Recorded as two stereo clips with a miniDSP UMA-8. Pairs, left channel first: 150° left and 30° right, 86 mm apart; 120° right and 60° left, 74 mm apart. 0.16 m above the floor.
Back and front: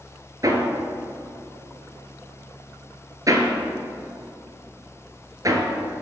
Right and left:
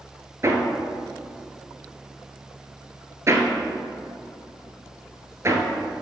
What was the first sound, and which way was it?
Hammering, 10° left.